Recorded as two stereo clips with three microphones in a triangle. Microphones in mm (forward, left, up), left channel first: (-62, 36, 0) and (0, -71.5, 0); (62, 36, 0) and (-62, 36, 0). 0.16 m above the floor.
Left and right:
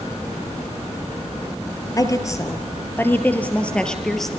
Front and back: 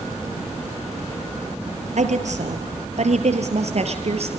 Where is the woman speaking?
Straight behind, 3.5 m; by 4.4 s 150° right, 3.5 m.